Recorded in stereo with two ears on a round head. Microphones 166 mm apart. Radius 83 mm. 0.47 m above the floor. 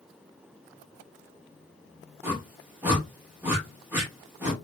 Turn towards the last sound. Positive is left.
turn(degrees=-10)  # may be behind; listen again after turning